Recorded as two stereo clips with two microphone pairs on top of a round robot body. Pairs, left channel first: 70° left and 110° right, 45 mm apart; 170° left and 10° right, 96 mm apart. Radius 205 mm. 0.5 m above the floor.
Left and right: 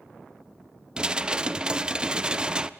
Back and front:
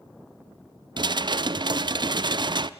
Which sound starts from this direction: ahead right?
Dishes clattering, at 1.0 s.